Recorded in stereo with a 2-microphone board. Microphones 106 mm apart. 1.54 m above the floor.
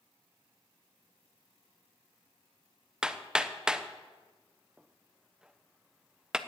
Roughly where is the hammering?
Centre.